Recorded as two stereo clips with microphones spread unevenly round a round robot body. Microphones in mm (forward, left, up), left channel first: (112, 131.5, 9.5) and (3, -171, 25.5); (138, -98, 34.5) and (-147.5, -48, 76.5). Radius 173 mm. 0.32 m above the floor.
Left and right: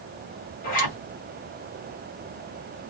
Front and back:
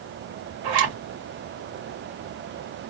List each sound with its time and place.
0.6 s a zipper: 125° left, 2.0 m